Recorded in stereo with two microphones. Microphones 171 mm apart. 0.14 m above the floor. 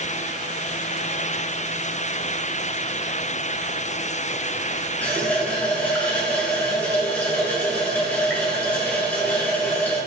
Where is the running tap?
10° left (ahead or behind), 1.0 m.